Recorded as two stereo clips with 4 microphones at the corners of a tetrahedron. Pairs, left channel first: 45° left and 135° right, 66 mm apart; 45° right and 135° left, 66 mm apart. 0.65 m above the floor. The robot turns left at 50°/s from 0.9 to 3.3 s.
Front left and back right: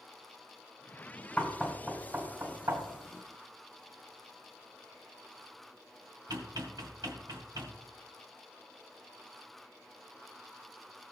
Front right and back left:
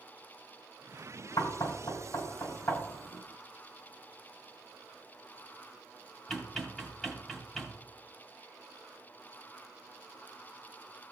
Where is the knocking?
30° right, 2 m; by 7.8 s 130° right, 2 m.